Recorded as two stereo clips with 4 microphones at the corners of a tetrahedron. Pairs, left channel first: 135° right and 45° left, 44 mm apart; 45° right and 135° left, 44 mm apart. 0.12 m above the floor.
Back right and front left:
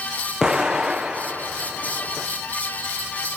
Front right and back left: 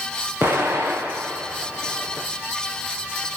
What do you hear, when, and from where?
0.4 s an explosion: 125° left, 5.5 m